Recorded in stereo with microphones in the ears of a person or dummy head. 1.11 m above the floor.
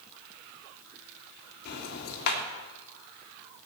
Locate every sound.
1.6 s ticking: 55° left (ahead or behind), 3 m